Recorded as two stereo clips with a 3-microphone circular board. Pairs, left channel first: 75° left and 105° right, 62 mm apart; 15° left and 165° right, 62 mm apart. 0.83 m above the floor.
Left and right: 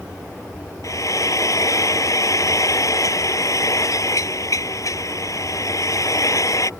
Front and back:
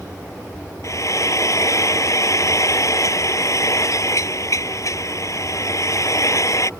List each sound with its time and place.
0.8 s frying: 50° left